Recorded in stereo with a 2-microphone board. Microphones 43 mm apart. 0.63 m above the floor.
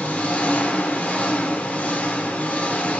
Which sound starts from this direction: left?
An engine running, at 0.0 s.